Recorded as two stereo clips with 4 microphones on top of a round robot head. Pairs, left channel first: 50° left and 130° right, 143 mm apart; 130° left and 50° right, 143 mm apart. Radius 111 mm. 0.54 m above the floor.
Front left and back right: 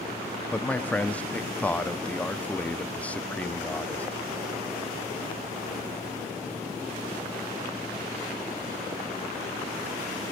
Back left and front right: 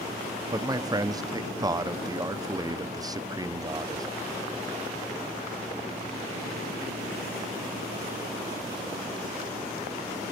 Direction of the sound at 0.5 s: 20° right.